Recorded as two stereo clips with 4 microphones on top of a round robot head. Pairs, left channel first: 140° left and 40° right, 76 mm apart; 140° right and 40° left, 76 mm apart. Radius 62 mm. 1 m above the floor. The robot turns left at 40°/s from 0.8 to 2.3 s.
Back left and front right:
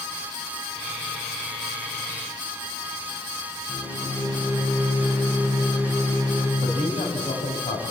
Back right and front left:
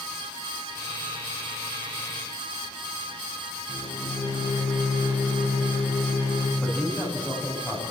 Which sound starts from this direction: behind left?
A man speaking, at 6.6 s.